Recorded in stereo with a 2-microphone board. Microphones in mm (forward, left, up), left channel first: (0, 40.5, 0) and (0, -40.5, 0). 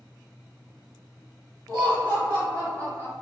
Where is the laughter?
55° right (ahead or behind), 1.8 m; by 3.1 s 40° right (ahead or behind), 1.9 m.